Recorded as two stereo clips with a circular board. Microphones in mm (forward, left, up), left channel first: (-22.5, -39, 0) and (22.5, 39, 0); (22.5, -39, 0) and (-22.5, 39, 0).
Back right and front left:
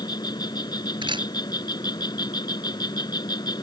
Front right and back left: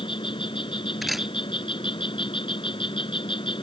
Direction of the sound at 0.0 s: 80° right.